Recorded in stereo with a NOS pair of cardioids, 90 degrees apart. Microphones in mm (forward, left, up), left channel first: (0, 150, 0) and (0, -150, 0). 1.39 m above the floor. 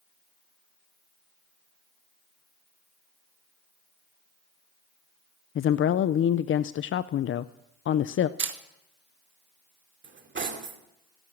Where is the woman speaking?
45° left, 0.5 m.